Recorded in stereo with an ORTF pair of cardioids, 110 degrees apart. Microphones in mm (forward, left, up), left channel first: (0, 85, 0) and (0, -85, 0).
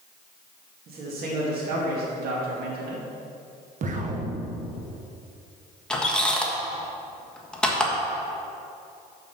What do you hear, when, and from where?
0.9 s a man speaking: 65° right, 2 m
3.8 s an explosion: 50° right, 1.0 m
5.9 s a squeak: 5° left, 1.3 m